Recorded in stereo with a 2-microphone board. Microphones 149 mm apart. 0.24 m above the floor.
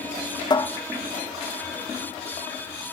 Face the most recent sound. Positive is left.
turn(degrees=30)  # may be behind; listen again after turning